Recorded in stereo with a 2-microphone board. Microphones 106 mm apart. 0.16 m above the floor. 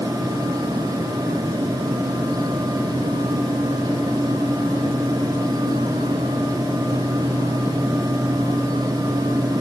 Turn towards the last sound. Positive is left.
No sound to turn to.